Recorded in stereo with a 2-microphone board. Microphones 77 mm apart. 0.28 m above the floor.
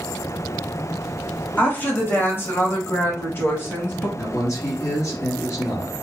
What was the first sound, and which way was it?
A woman speaking, 25° left (ahead or behind).